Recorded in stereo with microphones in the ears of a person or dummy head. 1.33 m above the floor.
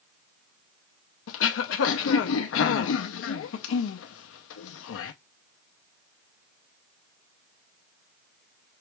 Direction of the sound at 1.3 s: 80° left.